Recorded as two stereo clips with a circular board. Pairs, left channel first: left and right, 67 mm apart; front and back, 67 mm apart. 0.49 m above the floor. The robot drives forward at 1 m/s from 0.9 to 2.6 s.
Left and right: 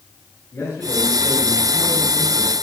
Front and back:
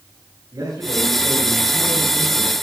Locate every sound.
0.5 s a man speaking: 155° left, 7.5 m; by 2.5 s 160° left, 9 m